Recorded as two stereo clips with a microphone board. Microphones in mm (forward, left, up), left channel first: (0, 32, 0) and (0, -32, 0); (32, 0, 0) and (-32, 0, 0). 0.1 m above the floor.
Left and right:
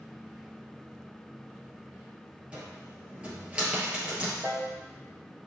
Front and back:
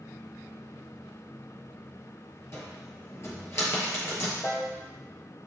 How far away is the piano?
About 1.6 m.